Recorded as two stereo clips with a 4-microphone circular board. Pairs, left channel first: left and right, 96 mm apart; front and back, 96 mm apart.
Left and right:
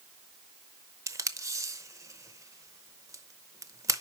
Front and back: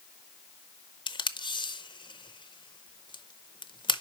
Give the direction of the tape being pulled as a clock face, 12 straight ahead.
1 o'clock.